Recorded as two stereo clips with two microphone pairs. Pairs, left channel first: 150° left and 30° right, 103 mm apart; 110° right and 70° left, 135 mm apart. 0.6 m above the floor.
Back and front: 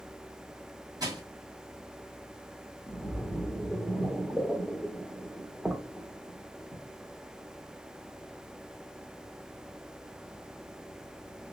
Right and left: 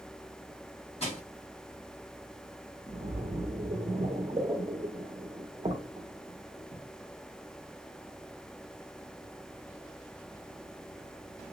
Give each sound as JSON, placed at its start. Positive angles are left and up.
{"t": 1.0, "sound": "crushing", "azimuth_deg": -75, "distance_m": 2.0}
{"t": 2.9, "sound": "a splash", "azimuth_deg": 60, "distance_m": 0.8}